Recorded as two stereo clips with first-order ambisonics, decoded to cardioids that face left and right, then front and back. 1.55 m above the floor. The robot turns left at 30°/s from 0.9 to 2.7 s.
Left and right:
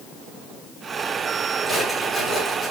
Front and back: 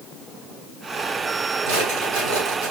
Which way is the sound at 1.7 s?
175° right.